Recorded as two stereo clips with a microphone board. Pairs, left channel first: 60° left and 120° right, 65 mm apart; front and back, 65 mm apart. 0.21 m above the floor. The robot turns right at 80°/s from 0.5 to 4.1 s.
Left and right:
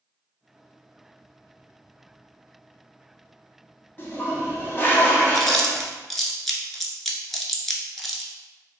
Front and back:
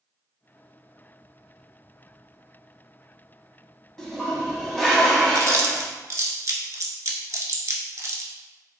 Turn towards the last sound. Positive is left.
turn(degrees=150)